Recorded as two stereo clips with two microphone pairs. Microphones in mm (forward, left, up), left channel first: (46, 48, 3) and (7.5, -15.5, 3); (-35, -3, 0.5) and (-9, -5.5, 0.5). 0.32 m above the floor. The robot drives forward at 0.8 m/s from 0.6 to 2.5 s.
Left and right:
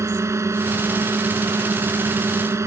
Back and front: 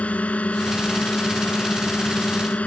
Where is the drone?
170° right.